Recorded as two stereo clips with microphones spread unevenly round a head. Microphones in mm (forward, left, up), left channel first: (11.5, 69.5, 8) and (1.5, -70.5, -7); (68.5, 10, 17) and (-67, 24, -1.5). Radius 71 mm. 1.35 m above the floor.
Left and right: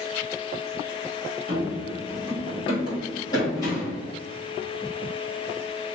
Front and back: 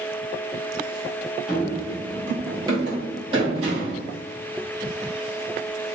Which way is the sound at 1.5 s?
80° left.